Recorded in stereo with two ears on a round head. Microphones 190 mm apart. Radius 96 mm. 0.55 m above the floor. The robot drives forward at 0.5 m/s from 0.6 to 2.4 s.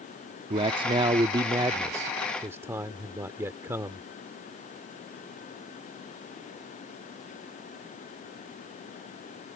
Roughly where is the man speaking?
Right.